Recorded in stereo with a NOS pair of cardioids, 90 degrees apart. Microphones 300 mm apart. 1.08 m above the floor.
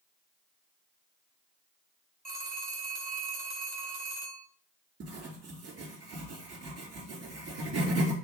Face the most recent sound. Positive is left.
turn(degrees=-55)